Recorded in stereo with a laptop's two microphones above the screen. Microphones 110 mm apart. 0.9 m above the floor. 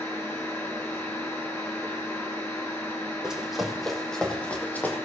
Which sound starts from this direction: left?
A machine running, at 0.0 s.